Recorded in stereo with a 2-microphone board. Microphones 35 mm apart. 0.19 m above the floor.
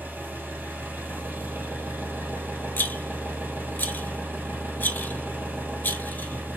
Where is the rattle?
65° left (ahead or behind), 0.6 m.